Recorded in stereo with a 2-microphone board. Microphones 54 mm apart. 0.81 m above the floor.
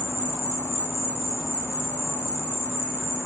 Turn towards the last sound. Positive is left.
turn(degrees=45)  # may be behind; listen again after turning